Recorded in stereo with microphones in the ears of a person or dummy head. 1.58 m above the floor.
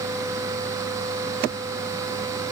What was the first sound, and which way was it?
Only background noise.